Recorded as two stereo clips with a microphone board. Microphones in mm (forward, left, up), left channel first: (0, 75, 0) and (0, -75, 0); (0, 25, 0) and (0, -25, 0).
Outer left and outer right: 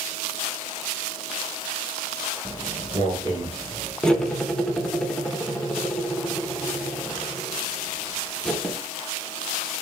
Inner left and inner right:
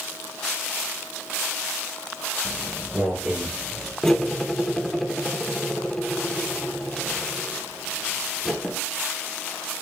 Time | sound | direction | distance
2.5 | footsteps | 15° right (ahead or behind) | 2.5 m
4.0 | cutlery clinking | 5° left (ahead or behind) | 0.8 m